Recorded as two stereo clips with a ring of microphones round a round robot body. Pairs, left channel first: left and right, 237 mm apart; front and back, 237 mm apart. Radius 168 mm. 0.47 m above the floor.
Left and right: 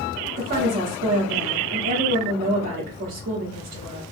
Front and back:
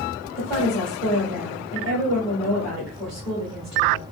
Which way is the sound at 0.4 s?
95° right.